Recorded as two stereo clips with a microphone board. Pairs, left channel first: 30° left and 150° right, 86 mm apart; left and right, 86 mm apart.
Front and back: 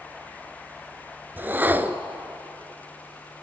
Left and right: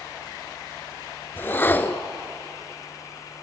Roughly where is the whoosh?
Behind left.